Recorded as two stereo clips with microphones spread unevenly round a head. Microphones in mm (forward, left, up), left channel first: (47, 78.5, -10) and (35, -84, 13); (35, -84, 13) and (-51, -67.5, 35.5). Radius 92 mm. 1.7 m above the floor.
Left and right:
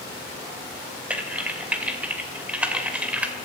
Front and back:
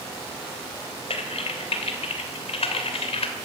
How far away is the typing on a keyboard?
About 2.5 m.